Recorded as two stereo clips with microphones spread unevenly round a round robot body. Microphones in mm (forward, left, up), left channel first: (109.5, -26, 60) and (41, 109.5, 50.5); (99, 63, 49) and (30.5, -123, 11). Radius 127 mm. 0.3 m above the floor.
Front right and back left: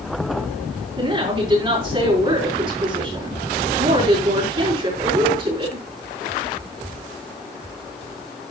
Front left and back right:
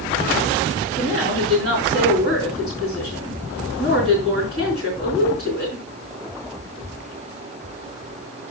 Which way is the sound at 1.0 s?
175° right.